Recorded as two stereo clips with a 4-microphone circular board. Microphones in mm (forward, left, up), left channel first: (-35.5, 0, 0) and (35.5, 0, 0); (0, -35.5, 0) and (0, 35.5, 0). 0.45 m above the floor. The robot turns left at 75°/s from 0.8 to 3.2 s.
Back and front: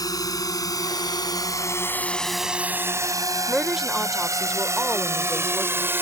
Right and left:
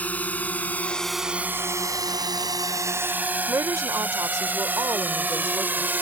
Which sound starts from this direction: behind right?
A drone, at 0.0 s.